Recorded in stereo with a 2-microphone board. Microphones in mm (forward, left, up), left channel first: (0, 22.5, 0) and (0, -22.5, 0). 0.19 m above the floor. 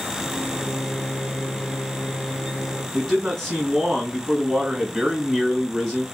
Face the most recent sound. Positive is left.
turn(degrees=0)  # may be behind; listen again after turning